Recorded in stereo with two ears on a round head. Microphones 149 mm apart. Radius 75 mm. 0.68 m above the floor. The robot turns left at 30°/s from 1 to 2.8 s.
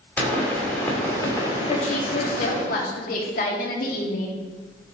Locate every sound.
0.2 s a pop: 170° left, 2.5 m; by 2.6 s 120° left, 2.5 m
1.7 s a woman speaking: 130° left, 1.7 m; by 4.4 s 95° left, 1.7 m